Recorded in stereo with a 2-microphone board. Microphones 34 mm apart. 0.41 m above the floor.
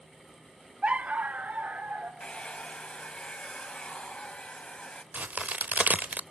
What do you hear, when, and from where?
0.8 s a dog barking: 35° right (ahead or behind), 0.8 m; by 2.1 s 50° right (ahead or behind), 2.5 m
2.2 s a hair dryer: 30° left (ahead or behind), 1.5 m
5.1 s a crack: 50° right (ahead or behind), 0.6 m